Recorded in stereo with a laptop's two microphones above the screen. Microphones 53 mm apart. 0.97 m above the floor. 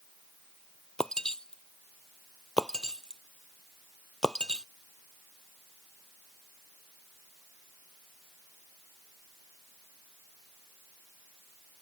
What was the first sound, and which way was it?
Breaking glass, 10° left (ahead or behind).